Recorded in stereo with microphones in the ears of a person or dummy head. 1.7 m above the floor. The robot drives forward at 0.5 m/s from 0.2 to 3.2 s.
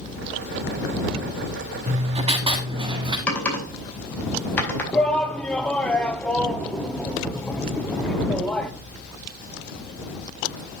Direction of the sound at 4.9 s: 10° left (ahead or behind).